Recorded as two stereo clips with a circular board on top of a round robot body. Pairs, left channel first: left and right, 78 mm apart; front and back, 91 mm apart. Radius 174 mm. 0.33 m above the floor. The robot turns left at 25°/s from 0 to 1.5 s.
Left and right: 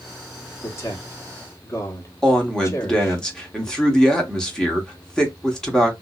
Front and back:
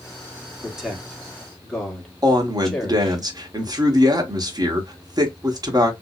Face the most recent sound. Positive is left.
turn(degrees=165)